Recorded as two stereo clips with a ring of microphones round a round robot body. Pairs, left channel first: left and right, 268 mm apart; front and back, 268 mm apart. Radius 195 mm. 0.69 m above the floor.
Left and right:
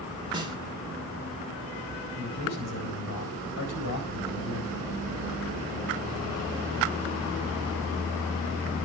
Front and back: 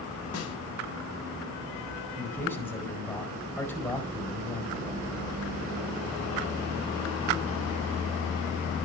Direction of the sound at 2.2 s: 80° left.